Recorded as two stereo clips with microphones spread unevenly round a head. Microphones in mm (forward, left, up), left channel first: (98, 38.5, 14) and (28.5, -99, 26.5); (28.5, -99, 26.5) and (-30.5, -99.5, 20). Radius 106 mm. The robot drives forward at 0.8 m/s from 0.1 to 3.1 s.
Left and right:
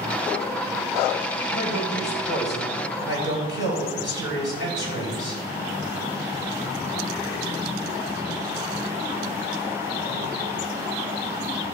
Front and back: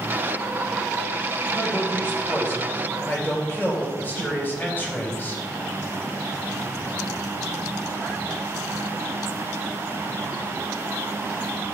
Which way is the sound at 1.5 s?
80° left.